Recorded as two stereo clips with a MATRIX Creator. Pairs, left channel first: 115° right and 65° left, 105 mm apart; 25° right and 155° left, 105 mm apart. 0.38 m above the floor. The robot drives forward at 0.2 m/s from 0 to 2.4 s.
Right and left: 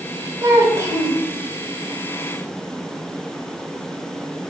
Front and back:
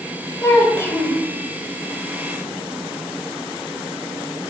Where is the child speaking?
30° left, 1.1 m; by 1.2 s 35° left, 1.0 m.